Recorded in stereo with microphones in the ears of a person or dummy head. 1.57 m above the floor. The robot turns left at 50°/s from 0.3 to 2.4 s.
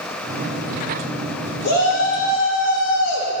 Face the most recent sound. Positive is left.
turn(degrees=85)